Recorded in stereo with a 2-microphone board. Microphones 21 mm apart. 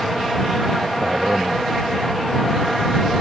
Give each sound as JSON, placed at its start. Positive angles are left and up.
{"t": 1.0, "sound": "a man speaking", "side_deg": -75}